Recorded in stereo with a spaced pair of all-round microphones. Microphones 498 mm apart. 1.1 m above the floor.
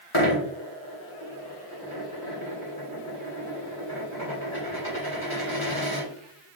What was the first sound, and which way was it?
A dropped coin, 65° left (ahead or behind).